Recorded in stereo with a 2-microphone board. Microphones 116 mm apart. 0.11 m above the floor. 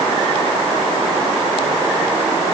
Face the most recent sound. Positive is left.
No sound to turn to.